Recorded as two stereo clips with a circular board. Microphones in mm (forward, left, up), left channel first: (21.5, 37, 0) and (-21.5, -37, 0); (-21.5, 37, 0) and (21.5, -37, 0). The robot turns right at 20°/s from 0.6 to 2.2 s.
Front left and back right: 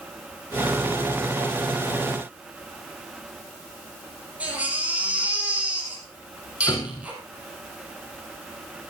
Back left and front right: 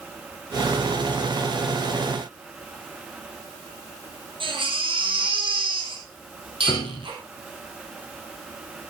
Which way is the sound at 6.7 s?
115° left.